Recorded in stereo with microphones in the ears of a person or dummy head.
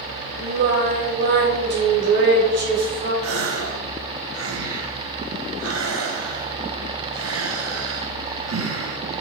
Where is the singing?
65° right (ahead or behind), 2.5 m.